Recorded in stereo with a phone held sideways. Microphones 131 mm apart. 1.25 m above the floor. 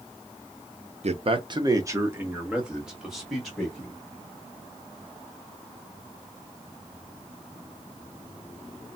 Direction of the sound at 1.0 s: 55° right (ahead or behind).